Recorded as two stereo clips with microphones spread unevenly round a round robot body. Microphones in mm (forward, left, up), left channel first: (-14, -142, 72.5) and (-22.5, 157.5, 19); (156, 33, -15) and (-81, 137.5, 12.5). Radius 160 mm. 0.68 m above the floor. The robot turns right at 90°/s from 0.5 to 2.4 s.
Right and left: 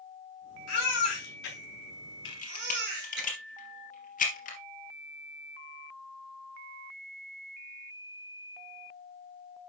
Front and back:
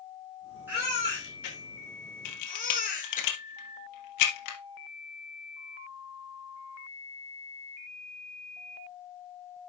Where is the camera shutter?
40° right, 3 m; by 4.6 s 25° right, 3 m.